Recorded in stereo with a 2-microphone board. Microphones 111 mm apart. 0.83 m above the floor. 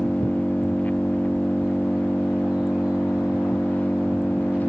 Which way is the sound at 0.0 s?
15° left (ahead or behind).